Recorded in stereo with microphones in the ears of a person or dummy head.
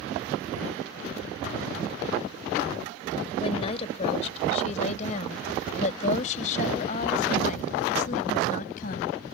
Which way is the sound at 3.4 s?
30° left (ahead or behind).